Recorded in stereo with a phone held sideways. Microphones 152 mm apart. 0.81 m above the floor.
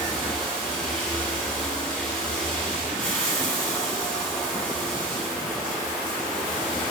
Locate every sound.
0.0 s running water: 10° left (ahead or behind), 1.4 m